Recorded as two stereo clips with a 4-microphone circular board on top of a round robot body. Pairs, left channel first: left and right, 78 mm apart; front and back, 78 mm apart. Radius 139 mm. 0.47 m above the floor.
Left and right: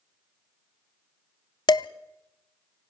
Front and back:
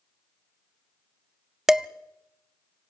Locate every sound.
1.7 s dishes clattering: 95° left, 0.8 m